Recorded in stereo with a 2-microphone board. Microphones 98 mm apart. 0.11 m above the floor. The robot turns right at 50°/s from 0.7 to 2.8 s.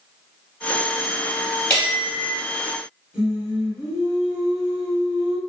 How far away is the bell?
About 1.9 m.